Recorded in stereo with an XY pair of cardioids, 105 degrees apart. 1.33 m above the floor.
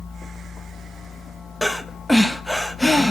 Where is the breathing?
10° left, 0.7 m.